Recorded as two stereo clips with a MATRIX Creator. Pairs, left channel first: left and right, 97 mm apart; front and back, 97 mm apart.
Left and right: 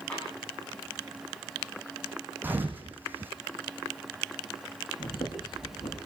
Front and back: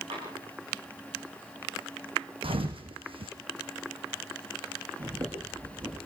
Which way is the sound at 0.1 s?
165° left.